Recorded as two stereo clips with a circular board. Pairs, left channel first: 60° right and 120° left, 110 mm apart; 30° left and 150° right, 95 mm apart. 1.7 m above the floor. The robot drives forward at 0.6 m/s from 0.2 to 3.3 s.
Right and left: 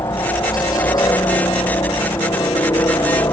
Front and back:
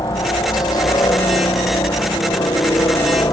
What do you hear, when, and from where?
0.0 s a helicopter: 10° right